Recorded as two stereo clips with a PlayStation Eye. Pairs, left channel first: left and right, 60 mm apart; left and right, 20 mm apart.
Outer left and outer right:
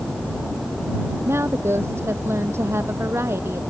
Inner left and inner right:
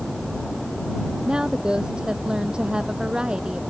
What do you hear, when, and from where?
1.2 s a woman speaking: 50° right (ahead or behind)